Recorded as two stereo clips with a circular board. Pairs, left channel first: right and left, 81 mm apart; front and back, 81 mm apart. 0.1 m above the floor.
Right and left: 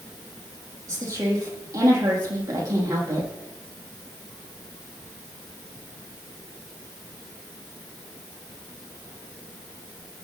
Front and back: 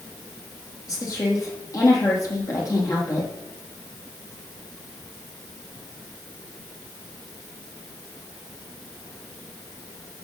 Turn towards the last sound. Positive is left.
turn(degrees=40)